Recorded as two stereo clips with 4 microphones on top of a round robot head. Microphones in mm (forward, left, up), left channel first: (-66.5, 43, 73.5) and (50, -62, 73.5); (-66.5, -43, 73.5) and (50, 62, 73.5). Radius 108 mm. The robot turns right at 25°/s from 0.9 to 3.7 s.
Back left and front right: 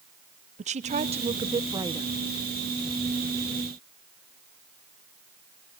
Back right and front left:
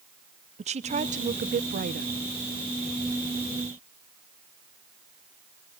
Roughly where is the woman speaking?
Ahead.